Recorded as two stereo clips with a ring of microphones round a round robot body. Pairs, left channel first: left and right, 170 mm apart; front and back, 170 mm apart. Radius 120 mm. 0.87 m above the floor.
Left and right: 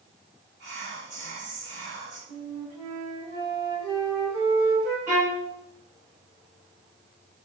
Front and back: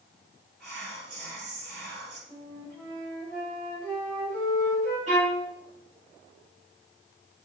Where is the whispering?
135° right, 1.2 m.